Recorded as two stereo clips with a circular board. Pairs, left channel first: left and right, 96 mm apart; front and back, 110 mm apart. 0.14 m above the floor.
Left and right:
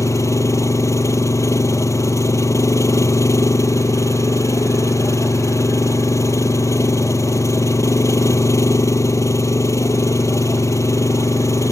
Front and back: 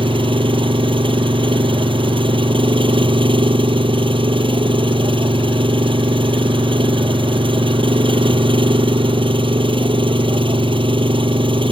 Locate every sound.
0.0 s an engine running: 145° left